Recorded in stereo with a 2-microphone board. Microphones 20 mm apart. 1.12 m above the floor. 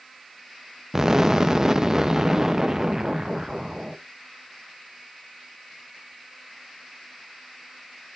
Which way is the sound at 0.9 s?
25° right (ahead or behind).